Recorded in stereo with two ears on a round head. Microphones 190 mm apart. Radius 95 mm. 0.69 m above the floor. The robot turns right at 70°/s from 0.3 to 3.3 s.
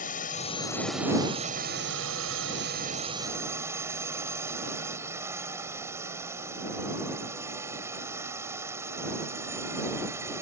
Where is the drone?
135° left; by 10.4 s 15° right.